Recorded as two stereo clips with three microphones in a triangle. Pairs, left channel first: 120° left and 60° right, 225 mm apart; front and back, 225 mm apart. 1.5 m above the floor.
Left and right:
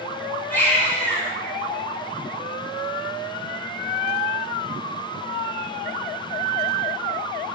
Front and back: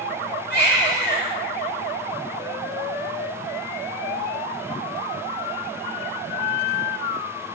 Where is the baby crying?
40° left, 3 m.